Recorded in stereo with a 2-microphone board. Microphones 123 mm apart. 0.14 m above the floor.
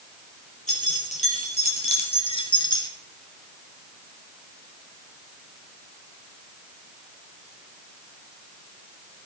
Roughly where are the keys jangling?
Left.